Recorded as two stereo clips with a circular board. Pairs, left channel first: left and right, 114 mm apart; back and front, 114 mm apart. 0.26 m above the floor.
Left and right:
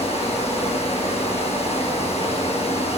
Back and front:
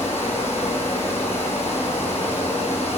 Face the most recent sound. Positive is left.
turn(degrees=110)